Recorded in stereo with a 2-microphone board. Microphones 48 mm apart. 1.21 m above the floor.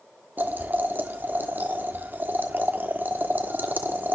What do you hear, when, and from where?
0.4 s boiling: 40° right (ahead or behind), 1.2 m